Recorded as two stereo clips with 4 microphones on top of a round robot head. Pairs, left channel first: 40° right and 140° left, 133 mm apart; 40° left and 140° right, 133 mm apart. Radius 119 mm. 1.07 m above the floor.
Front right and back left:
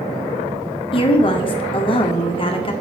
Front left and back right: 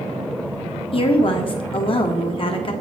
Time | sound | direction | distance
0.9 | a woman speaking | straight ahead | 1.5 m